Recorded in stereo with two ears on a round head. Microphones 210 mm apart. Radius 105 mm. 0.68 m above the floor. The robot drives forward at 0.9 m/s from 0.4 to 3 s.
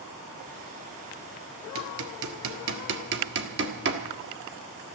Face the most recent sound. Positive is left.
turn(degrees=-50)  # may be behind; listen again after turning